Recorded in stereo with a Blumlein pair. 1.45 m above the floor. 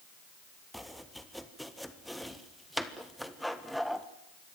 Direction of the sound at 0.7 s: Straight ahead.